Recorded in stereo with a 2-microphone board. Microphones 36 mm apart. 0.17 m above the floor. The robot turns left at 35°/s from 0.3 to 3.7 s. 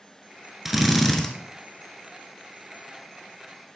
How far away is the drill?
About 1.1 m.